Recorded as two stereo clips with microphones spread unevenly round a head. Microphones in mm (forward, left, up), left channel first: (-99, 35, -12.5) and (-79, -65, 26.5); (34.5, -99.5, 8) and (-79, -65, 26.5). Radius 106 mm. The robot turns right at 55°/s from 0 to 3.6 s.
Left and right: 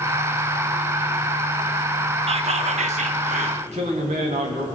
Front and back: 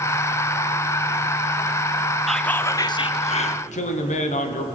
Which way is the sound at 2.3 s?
105° right.